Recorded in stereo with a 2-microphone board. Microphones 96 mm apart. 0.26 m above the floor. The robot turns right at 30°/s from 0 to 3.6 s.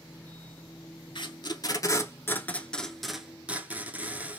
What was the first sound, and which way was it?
Tape being pulled, 55° left (ahead or behind).